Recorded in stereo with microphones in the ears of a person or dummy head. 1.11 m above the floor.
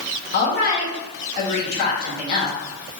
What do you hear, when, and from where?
0.3 s a woman speaking: 55° left (ahead or behind), 1.9 m